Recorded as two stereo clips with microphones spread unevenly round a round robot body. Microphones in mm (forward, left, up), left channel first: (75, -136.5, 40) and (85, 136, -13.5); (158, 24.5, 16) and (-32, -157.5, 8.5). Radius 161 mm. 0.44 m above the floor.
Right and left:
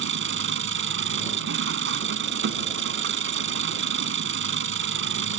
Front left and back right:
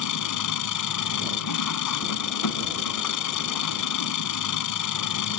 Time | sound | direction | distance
0.0 | an engine running | 45° left | ?